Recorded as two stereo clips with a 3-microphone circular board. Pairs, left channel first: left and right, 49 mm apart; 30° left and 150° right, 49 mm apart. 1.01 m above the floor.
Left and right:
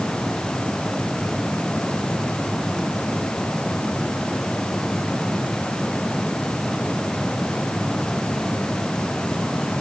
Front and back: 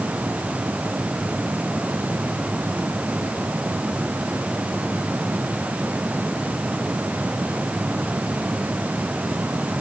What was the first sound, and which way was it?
Only background noise.